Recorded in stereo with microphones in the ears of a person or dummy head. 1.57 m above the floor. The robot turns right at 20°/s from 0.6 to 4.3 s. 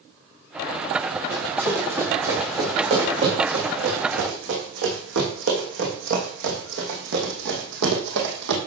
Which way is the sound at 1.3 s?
10° right (ahead or behind).